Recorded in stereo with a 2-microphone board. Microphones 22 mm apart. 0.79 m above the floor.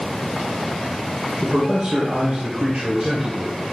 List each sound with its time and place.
1.4 s a man speaking: 55° right (ahead or behind), 2.5 m; by 3.6 s 75° right (ahead or behind), 3 m